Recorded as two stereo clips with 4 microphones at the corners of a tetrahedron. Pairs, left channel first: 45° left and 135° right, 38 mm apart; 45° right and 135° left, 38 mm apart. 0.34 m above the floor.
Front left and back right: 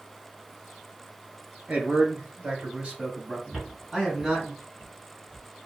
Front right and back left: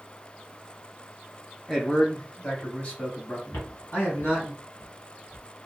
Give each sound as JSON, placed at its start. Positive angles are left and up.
{"t": 1.7, "sound": "a man speaking", "azimuth_deg": -125, "distance_m": 1.3}
{"t": 3.5, "sound": "footsteps", "azimuth_deg": -50, "distance_m": 1.1}